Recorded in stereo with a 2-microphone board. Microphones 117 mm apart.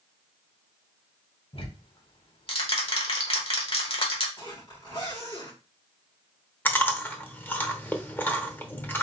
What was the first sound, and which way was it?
Ticking, 55° left (ahead or behind).